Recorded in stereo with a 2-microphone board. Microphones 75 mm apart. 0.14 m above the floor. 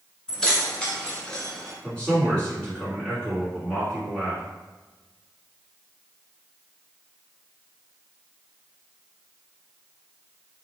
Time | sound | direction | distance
0.3 | keys jangling | 10° left (ahead or behind) | 1.0 m
1.8 | a man speaking | 10° left (ahead or behind) | 1.9 m